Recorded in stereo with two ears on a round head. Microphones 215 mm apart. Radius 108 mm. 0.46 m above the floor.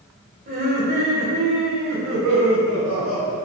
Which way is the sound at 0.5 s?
40° right (ahead or behind).